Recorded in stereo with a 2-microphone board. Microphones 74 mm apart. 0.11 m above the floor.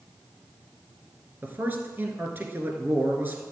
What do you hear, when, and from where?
1.4 s a man speaking: 25° right (ahead or behind), 1.7 m